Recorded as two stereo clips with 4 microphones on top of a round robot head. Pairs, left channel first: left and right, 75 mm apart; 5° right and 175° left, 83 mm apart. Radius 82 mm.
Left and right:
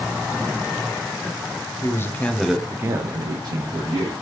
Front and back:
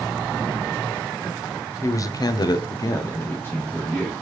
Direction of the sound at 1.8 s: 45° left.